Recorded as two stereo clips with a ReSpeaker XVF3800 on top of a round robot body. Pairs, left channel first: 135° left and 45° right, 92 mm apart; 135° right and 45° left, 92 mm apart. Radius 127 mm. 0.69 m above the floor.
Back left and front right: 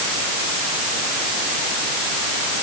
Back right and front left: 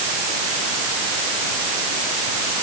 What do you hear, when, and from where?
Only background noise.